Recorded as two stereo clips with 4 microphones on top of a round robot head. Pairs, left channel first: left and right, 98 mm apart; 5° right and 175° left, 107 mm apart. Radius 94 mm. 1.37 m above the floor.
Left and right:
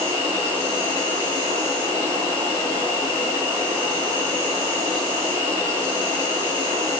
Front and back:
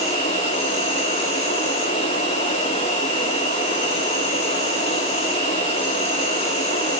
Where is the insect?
20° right, 9.5 m.